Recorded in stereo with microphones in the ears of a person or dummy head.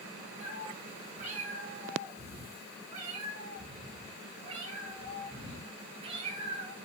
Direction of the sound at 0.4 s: 40° right (ahead or behind).